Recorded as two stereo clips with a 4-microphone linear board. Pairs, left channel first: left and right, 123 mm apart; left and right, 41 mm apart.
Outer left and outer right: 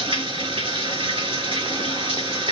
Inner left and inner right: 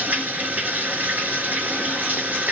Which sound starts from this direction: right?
Running water, at 0.0 s.